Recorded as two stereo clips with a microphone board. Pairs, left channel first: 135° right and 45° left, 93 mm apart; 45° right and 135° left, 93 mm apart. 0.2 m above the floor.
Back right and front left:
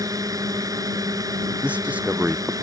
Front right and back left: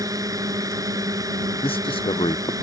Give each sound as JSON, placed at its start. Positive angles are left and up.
{"t": 0.0, "sound": "a drone", "azimuth_deg": 90}
{"t": 1.6, "sound": "a man speaking", "azimuth_deg": -30}